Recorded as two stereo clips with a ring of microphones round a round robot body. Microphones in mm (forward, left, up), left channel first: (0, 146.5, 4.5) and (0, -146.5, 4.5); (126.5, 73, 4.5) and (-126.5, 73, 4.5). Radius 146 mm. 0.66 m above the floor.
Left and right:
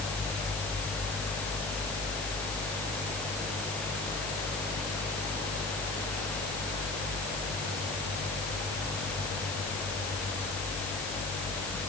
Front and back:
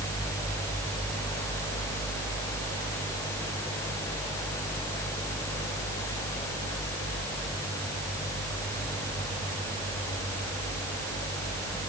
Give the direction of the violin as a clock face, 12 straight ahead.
No violin in this recording.